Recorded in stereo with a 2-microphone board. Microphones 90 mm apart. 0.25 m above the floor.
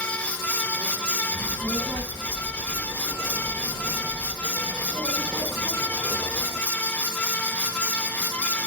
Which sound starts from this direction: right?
A child speaking, at 1.3 s.